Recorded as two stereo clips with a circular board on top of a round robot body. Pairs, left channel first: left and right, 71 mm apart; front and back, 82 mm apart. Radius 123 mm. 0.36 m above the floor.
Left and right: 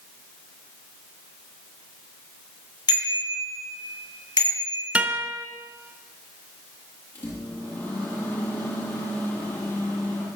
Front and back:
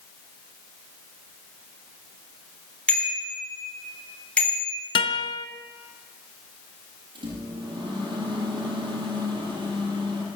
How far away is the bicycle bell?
About 9.5 m.